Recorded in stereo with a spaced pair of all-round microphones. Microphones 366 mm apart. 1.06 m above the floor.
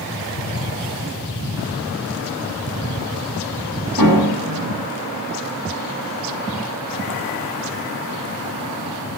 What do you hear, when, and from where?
4.0 s a piano: 65° right (ahead or behind), 7 m